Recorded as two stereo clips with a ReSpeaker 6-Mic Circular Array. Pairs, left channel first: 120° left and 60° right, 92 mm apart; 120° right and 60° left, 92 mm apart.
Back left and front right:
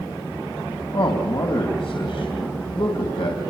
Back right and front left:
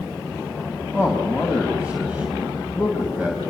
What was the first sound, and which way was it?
A man speaking, 135° left.